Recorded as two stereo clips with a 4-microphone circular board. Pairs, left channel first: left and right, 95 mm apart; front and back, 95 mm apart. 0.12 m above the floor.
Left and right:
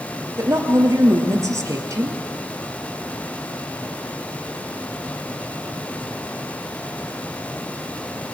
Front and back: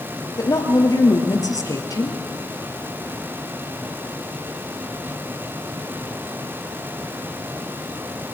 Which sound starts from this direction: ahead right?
A woman speaking, at 0.4 s.